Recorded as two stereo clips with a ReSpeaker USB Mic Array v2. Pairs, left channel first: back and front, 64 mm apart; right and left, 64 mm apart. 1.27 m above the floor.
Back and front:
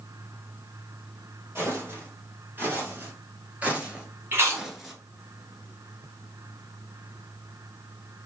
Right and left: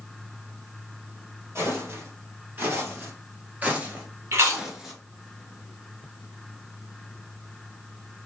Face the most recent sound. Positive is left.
turn(degrees=50)